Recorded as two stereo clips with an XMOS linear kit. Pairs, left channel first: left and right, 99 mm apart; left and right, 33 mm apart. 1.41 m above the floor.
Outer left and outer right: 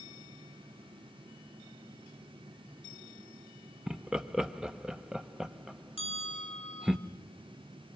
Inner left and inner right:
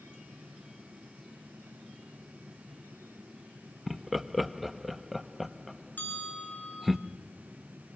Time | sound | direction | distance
3.9 | laughter | 5° right (ahead or behind) | 1.0 m
6.0 | a bell | 65° left (ahead or behind) | 8.5 m